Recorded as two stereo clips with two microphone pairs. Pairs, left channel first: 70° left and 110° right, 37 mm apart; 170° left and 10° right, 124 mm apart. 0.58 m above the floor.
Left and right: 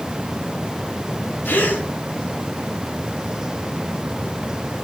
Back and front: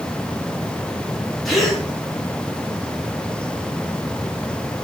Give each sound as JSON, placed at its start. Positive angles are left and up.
{"t": 1.4, "sound": "a gasp", "azimuth_deg": 80, "distance_m": 3.0}